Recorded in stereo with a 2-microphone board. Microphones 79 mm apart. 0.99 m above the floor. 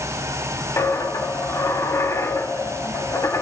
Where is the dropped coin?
40° left (ahead or behind), 1.0 m.